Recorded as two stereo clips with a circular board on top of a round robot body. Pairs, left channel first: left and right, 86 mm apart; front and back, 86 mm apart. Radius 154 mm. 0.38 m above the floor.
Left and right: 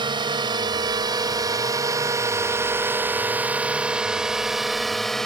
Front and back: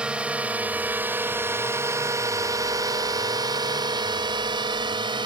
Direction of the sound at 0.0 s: 105° right.